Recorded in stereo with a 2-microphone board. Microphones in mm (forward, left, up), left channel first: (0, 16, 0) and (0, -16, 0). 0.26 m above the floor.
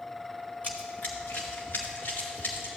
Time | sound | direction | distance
0.6 | running footsteps | 45° left (ahead or behind) | 1.0 m